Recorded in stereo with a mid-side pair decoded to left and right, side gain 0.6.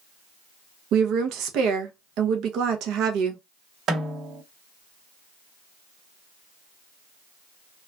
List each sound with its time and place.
0.9 s a woman speaking: 65° right, 0.7 m
3.9 s a snare drum: 50° right, 1.5 m